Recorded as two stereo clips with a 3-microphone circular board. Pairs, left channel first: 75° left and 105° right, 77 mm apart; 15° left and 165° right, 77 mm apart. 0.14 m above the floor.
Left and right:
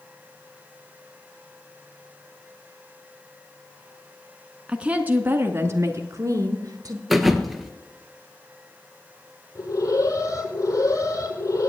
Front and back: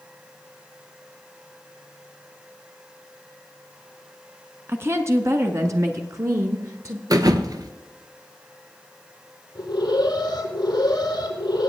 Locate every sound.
4.7 s a woman speaking: 170° right, 1.1 m; by 7.0 s 130° right, 1.9 m
7.1 s a thud: 165° left, 1.0 m
9.6 s an alarm: 35° left, 7.5 m